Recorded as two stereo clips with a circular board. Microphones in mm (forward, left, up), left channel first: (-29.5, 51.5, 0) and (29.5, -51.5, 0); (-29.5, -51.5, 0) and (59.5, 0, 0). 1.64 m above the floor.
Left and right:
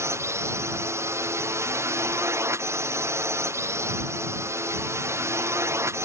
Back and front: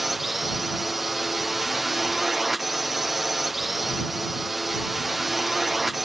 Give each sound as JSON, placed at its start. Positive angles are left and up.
{"t": 0.0, "sound": "a drone", "azimuth_deg": -55}